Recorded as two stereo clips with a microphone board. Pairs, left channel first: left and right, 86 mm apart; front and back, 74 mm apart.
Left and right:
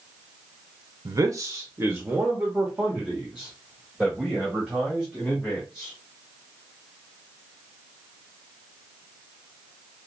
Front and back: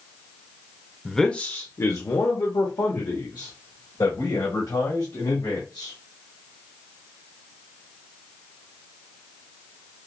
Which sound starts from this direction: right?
A man speaking, at 1.1 s.